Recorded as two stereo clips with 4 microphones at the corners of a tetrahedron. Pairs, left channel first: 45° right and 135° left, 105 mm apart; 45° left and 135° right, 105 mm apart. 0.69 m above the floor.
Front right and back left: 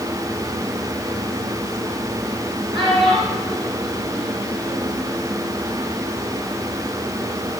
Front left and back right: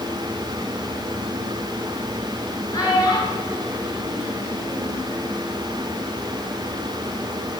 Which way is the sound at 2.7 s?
95° left.